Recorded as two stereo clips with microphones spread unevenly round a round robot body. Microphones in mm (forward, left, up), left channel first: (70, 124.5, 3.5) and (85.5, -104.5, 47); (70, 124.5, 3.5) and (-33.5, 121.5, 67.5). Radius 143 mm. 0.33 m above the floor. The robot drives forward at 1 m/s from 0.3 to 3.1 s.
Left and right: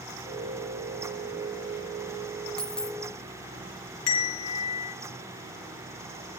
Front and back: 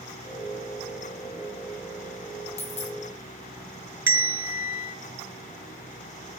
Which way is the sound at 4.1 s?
110° left.